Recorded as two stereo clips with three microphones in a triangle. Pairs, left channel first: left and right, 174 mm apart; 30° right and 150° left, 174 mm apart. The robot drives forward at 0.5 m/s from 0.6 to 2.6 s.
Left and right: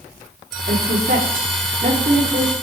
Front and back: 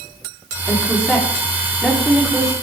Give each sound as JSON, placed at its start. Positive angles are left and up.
{"t": 0.7, "sound": "a woman speaking", "azimuth_deg": -115, "distance_m": 3.5}